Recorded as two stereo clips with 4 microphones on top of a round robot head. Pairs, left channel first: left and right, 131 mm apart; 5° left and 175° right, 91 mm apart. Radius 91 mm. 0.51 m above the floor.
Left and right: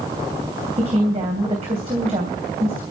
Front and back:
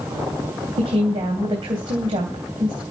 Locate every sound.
0.8 s a woman speaking: 140° right, 3 m